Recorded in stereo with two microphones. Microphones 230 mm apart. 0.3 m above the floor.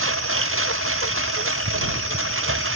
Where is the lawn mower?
65° right (ahead or behind).